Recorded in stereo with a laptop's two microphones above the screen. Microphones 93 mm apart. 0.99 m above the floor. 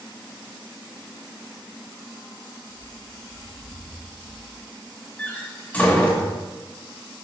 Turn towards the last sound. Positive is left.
turn(degrees=15)  # may be behind; listen again after turning